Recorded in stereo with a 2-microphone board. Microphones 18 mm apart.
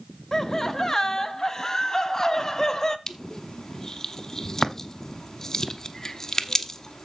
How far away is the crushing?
About 0.9 m.